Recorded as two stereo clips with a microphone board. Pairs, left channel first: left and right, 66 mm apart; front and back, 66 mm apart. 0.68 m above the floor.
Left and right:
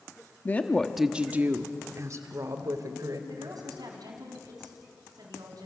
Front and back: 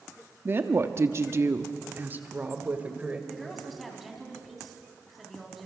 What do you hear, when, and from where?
0.5 s a woman speaking: 140° left, 1.2 m; by 3.2 s 110° right, 3 m
3.3 s a woman speaking: 90° right, 4 m